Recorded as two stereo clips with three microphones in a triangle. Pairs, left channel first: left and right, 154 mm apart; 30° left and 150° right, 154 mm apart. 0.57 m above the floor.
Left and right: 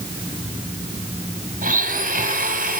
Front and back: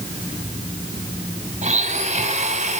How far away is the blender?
About 3.5 m.